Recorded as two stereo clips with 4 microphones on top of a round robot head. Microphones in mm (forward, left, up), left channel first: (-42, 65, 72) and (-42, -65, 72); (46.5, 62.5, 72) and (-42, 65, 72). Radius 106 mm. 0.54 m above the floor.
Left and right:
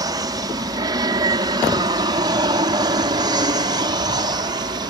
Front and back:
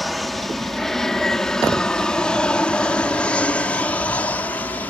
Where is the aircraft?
90° right; by 4.9 s 60° right.